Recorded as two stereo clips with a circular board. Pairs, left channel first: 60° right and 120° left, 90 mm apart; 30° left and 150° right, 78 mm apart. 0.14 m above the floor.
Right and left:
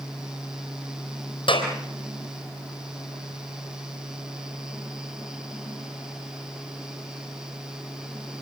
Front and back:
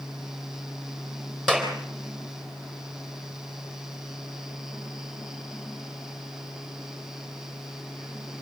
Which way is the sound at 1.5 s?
55° right.